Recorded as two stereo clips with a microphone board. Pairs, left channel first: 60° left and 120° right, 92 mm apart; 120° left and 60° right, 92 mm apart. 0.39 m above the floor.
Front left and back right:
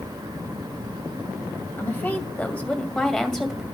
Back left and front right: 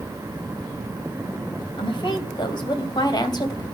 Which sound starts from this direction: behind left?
A woman speaking, at 1.8 s.